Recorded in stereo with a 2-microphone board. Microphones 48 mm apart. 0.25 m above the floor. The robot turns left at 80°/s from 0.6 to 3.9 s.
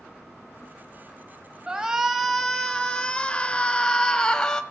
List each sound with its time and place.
1.7 s a shout: 15° right (ahead or behind), 1.1 m; by 4.6 s 15° left (ahead or behind), 1.1 m